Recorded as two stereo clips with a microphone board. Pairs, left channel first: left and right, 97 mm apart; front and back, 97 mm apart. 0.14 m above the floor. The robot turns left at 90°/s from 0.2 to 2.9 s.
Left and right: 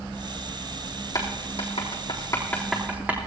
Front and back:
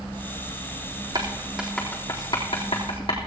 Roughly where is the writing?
Behind left.